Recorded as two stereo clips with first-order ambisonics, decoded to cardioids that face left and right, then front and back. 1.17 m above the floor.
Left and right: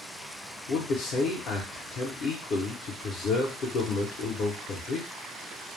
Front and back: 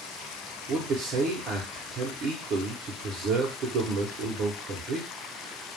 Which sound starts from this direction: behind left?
A man speaking, at 0.7 s.